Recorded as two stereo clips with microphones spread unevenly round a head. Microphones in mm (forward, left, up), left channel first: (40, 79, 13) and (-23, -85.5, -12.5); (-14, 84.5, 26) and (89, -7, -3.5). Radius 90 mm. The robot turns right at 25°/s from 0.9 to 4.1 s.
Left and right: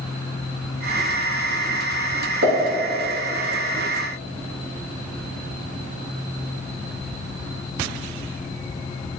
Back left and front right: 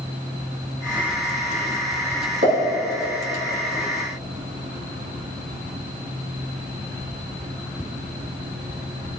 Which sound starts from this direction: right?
A pop, at 2.4 s.